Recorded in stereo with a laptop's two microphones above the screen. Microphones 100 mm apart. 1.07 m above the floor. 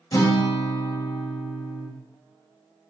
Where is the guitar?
40° left (ahead or behind), 1.0 m.